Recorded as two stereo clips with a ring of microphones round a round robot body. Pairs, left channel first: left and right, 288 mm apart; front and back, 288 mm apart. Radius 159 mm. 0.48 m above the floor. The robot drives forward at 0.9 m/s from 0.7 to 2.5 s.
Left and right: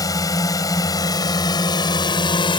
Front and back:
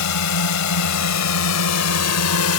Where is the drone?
10° left; by 2.6 s 15° left.